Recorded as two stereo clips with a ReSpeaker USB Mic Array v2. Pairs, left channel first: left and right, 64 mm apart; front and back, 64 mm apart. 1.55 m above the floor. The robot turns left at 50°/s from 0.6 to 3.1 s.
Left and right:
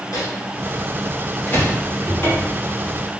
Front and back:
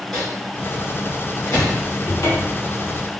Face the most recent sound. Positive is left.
turn(degrees=-5)